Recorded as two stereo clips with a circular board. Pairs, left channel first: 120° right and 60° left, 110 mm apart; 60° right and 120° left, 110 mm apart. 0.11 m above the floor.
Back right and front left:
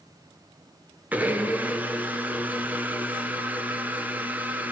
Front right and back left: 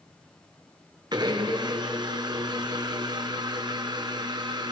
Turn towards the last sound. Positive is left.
turn(degrees=125)